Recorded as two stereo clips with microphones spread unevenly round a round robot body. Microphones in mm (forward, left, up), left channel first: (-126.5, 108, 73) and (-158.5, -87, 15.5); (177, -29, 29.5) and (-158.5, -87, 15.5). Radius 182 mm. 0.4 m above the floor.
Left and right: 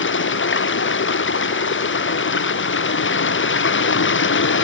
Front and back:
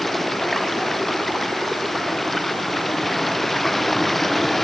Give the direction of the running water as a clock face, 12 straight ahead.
9 o'clock.